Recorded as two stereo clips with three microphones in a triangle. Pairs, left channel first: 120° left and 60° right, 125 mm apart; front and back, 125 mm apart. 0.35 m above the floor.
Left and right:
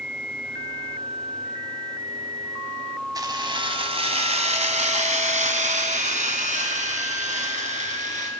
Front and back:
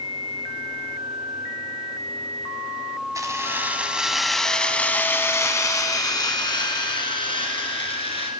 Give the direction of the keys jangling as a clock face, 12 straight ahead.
4 o'clock.